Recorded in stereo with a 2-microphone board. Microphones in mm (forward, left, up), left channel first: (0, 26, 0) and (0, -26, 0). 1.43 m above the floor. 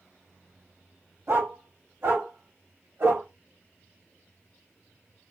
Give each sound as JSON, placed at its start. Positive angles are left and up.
{"t": 1.3, "sound": "a dog barking", "side_deg": -60, "distance_m": 2.5}